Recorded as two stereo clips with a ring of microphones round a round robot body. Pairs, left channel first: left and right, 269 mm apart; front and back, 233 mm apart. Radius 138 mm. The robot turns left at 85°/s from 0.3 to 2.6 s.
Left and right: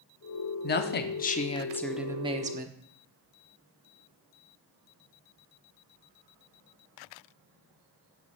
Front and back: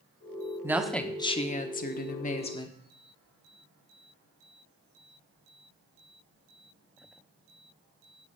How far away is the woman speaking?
About 1.0 m.